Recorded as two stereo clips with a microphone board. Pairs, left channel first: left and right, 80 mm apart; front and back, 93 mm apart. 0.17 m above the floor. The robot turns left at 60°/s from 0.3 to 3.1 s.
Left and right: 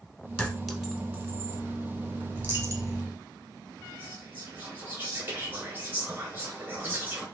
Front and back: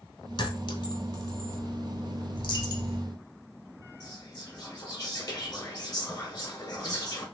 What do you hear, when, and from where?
0.4 s a clink: 15° left, 1.0 m; by 1.6 s 55° right, 1.0 m
2.4 s a dropped coin: 20° right, 1.0 m; by 3.0 s 55° right, 1.0 m
4.0 s whispering: 35° right, 1.8 m